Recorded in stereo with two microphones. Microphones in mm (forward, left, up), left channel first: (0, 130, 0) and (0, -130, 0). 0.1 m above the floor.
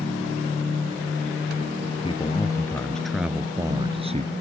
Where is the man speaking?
20° left (ahead or behind); by 4.3 s 30° right (ahead or behind).